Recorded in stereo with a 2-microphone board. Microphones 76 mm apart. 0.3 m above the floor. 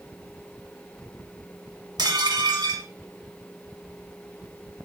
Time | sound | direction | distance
2.0 | dishes clattering | 65° right (ahead or behind) | 1.9 m